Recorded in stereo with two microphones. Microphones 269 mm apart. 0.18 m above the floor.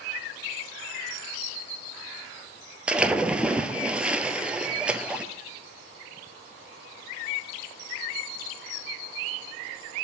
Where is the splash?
5° right (ahead or behind), 0.6 m.